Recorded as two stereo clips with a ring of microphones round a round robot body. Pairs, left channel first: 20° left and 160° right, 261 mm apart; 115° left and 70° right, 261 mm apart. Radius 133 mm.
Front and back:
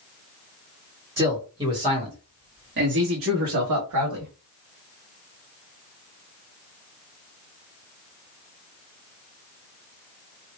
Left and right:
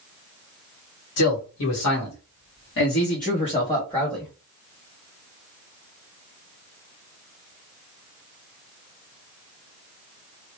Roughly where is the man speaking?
Behind left.